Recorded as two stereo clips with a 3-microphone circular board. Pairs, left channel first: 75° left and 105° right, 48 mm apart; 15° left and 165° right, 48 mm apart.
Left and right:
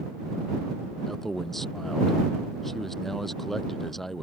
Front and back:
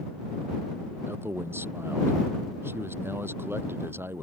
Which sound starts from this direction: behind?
A man speaking, at 1.1 s.